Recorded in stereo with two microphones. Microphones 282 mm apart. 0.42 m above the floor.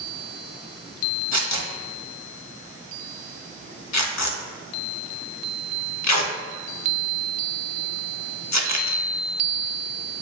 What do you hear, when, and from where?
1.3 s tearing paper: 70° left (ahead or behind), 0.5 m